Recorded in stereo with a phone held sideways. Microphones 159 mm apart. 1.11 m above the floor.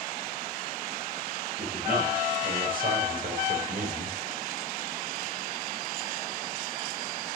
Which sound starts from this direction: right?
A man speaking, at 1.6 s.